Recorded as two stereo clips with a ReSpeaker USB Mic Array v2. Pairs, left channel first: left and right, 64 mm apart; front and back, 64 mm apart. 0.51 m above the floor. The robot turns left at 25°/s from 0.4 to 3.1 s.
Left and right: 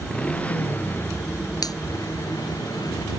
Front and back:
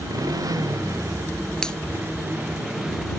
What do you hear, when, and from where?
0.0 s a motorcycle: 160° left; by 3.2 s 95° left
1.6 s a finger snap: 80° left; by 1.8 s 75° left